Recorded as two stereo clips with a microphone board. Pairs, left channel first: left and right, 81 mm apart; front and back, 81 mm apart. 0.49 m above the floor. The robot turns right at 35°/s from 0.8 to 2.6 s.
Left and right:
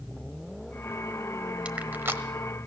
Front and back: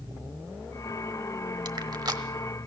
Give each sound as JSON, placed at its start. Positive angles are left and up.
{"t": 1.6, "sound": "crushing", "azimuth_deg": -165, "distance_m": 1.1}